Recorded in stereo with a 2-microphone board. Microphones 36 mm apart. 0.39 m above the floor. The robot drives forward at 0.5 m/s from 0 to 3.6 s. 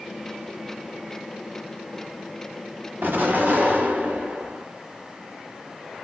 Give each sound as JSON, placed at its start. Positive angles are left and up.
{"t": 3.0, "sound": "an explosion", "side_deg": -65, "distance_m": 1.1}